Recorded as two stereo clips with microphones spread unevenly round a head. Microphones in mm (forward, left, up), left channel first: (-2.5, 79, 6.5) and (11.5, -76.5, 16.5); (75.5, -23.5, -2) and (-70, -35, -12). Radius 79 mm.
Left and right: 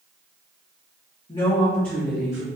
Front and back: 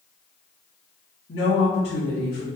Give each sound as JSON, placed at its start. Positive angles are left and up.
{"t": 1.3, "sound": "a woman speaking", "azimuth_deg": 35, "distance_m": 2.0}